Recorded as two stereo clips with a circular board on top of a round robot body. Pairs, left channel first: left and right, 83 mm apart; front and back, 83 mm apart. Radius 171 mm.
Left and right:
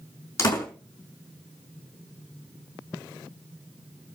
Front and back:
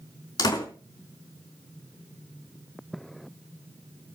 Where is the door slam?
35° left, 4.5 m.